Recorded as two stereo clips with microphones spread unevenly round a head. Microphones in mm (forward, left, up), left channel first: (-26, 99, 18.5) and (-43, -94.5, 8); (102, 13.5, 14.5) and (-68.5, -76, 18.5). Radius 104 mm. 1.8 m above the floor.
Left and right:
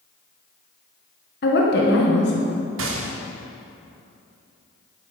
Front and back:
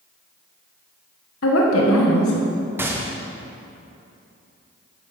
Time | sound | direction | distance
1.4 | a woman speaking | 50° left | 1.3 m
2.8 | a gunshot | 75° right | 1.1 m